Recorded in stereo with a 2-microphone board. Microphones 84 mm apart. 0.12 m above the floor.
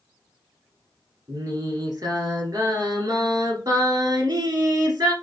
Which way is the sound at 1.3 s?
45° right (ahead or behind).